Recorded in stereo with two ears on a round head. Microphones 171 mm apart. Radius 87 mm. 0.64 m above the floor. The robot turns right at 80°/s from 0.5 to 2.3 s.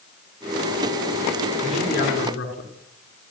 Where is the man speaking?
Straight ahead, 7.5 m; by 2.7 s 50° left, 7.5 m.